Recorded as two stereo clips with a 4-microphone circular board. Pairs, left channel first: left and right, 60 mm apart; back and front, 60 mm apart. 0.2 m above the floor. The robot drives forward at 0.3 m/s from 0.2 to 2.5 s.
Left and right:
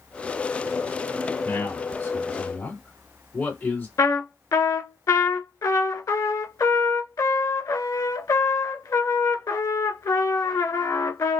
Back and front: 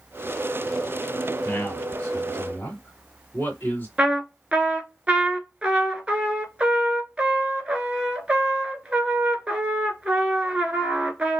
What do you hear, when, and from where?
1.4 s a man speaking: 120° left, 1.9 m; by 3.9 s 130° left, 2 m
4.0 s a trumpet: 70° left, 0.7 m